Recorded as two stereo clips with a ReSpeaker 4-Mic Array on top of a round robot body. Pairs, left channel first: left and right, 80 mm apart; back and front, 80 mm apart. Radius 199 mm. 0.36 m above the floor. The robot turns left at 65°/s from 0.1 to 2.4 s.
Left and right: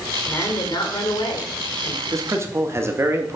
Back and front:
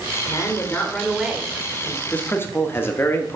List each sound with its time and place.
0.2 s a woman speaking: 145° left, 2.5 m; by 2.0 s 30° left, 2.5 m
2.1 s a man speaking: 110° right, 1.4 m; by 3.4 s 130° right, 1.4 m